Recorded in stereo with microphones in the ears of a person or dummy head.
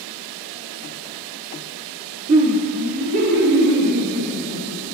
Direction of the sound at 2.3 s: 35° right (ahead or behind).